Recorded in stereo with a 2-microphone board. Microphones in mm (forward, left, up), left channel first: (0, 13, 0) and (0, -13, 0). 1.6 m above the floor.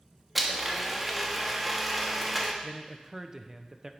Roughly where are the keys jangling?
No keys jangling in this recording.